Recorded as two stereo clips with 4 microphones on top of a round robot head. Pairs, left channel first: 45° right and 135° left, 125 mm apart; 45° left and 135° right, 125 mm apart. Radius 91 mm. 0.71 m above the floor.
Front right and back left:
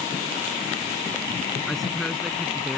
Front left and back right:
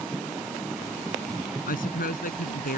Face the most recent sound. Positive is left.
turn(degrees=45)